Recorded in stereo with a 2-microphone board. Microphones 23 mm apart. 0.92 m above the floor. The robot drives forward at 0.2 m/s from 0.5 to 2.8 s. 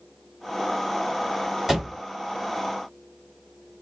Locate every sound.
1.7 s a door slam: 10° right (ahead or behind), 1.4 m